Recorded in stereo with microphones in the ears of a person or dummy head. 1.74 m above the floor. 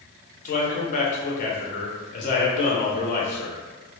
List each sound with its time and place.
0.5 s a man speaking: 45° left (ahead or behind), 0.6 m